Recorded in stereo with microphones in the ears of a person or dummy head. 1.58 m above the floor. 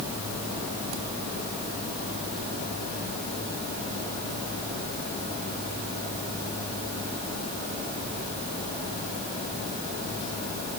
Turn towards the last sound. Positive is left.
No sound to turn to.